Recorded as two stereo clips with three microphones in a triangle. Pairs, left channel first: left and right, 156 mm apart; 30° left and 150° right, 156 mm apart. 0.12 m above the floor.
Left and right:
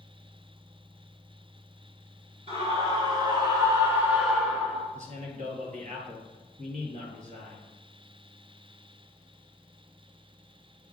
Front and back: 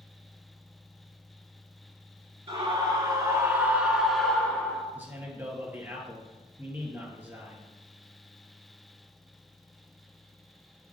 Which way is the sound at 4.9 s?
75° right.